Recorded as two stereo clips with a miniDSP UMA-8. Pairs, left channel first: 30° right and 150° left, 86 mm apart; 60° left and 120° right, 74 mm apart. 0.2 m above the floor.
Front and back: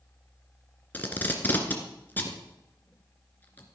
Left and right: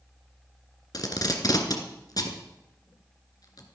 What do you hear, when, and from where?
0.9 s tape being pulled: 35° left, 2 m